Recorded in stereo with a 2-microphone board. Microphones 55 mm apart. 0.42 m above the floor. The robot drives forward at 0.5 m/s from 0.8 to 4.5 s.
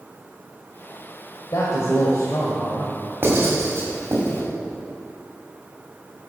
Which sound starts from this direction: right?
Writing, at 3.2 s.